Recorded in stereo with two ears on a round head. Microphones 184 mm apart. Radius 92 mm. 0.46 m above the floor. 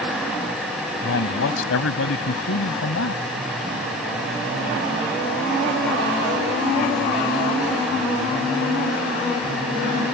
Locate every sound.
1.0 s a man speaking: 70° left (ahead or behind)